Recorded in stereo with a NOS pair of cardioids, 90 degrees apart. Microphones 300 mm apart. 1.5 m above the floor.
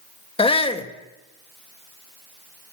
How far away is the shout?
About 1.7 m.